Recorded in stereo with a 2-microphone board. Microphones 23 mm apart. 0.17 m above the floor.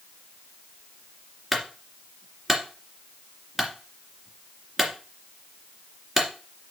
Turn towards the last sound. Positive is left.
turn(degrees=-5)  # may be behind; listen again after turning